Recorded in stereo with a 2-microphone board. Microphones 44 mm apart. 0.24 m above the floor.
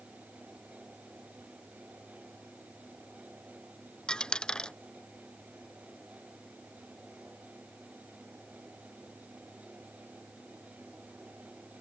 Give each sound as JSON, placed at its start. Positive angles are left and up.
{"t": 4.1, "sound": "a dropped coin", "side_deg": 20}